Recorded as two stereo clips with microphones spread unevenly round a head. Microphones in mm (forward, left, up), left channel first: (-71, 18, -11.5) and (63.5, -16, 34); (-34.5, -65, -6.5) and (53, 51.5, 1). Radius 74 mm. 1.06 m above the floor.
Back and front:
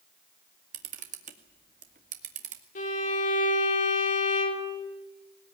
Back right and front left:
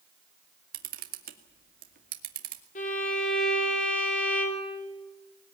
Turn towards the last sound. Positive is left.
turn(degrees=-165)